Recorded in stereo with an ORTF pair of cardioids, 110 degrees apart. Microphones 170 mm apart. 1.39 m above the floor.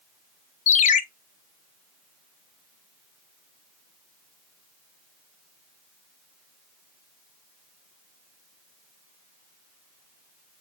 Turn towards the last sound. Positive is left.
turn(degrees=50)